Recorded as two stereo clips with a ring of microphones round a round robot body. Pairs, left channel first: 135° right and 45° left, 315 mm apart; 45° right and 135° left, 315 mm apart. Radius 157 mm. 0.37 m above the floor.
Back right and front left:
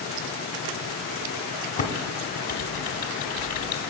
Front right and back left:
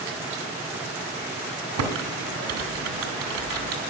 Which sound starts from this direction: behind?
Typing on a keyboard, at 1.8 s.